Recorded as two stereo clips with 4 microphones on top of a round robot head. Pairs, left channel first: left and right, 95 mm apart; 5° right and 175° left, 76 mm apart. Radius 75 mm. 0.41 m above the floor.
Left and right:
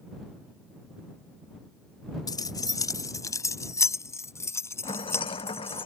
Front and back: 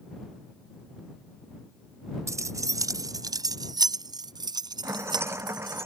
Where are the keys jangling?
135° left; by 5.8 s 155° left.